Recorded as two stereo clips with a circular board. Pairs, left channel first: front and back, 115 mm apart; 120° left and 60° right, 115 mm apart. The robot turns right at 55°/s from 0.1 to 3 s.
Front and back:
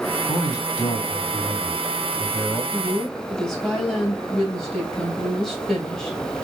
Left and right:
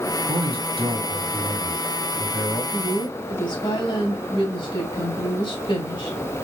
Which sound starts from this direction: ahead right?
A man speaking, at 0.3 s.